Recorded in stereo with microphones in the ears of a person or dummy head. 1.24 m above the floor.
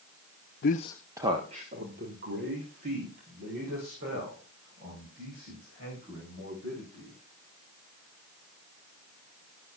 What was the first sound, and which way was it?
A man speaking, 50° left (ahead or behind).